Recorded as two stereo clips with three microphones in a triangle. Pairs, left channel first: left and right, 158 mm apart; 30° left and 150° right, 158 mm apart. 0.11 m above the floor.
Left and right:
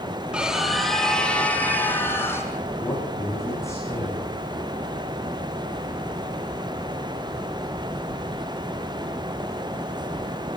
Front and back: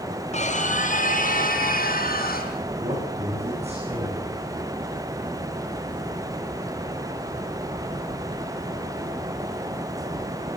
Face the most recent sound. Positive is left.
turn(degrees=160)